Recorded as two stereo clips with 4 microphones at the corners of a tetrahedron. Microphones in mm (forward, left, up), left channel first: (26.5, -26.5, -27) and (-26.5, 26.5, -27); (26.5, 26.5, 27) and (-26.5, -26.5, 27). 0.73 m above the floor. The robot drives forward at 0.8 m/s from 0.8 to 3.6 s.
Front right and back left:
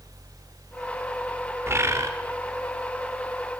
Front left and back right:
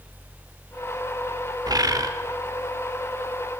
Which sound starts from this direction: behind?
A bird, at 1.7 s.